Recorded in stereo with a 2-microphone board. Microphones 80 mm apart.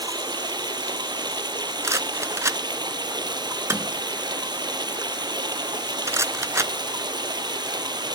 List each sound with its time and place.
0.0 s running water: 65° right (ahead or behind), 1.0 m
1.8 s a rattle: 40° right (ahead or behind), 0.6 m